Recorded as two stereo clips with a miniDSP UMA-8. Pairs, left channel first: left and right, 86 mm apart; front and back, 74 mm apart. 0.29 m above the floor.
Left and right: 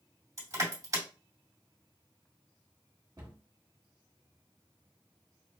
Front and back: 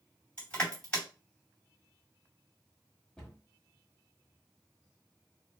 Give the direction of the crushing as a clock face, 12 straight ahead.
2 o'clock.